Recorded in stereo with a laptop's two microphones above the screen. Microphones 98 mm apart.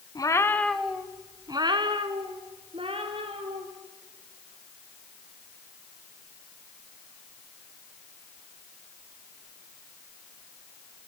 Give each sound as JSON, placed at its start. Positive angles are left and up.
{"t": 0.1, "sound": "a cat meowing", "side_deg": 40, "distance_m": 1.2}